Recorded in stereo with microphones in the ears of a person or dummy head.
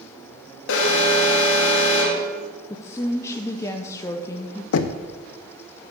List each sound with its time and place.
0.7 s an alarm: 70° left (ahead or behind), 1.6 m
2.7 s a woman speaking: 20° left (ahead or behind), 0.6 m
4.7 s knocking: 70° left (ahead or behind), 0.5 m